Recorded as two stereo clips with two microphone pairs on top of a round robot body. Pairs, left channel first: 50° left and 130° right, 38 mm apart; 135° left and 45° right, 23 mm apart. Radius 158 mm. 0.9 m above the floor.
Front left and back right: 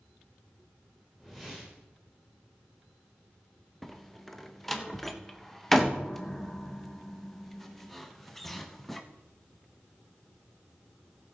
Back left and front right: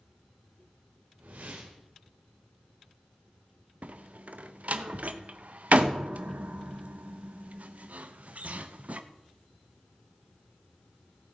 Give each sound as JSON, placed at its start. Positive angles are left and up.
{"t": 1.2, "sound": "a whoosh", "azimuth_deg": -45, "distance_m": 1.0}
{"t": 3.8, "sound": "a door slam", "azimuth_deg": -35, "distance_m": 0.7}